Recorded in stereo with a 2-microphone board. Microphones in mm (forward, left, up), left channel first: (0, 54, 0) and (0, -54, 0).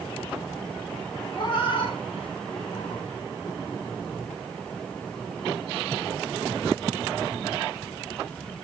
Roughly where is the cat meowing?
Left.